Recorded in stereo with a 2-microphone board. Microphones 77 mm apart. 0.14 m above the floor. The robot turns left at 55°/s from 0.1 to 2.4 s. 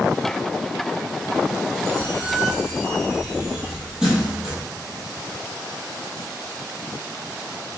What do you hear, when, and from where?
1.9 s a squeak: 40° right (ahead or behind), 0.9 m; by 4.6 s 10° right (ahead or behind), 0.9 m